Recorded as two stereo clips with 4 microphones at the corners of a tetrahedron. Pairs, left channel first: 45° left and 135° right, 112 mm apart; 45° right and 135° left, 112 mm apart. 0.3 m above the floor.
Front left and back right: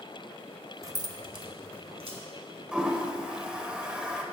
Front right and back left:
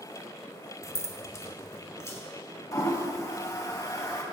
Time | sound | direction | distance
0.8 | keys jangling | 90° right | 0.7 m
2.7 | a toilet flushing | 60° right | 1.1 m